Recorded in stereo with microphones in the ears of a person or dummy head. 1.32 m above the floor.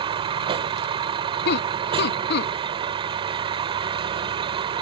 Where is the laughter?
65° left (ahead or behind).